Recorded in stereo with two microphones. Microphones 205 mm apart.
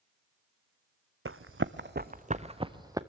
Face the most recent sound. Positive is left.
turn(degrees=-15)  # may be behind; listen again after turning